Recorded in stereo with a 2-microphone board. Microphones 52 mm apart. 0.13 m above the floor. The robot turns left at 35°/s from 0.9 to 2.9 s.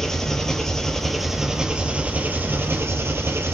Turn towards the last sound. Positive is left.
turn(degrees=-60)